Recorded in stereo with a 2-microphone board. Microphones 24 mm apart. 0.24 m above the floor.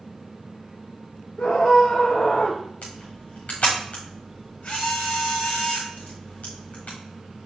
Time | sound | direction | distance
1.4 | a scream | 50° left (ahead or behind) | 4.5 m
2.8 | a camera shutter | 80° left | 5.5 m